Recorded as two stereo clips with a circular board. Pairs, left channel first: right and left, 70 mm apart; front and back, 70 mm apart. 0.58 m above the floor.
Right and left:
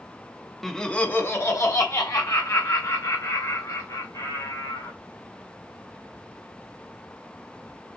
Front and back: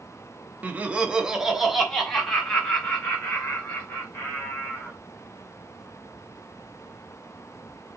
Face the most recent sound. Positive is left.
turn(degrees=-75)